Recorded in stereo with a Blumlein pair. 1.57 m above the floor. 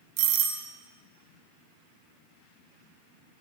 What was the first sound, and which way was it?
A doorbell, 45° right.